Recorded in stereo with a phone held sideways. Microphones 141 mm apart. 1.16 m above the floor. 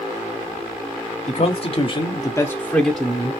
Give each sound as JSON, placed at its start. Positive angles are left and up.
{"t": 1.3, "sound": "a man speaking", "side_deg": 50, "distance_m": 0.9}